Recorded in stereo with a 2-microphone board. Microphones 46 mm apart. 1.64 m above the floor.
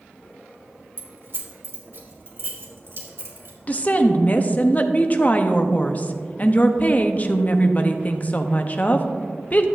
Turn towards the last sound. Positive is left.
turn(degrees=35)  # may be behind; listen again after turning